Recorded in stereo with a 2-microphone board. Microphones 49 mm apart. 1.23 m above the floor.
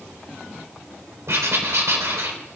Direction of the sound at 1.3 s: 65° right (ahead or behind).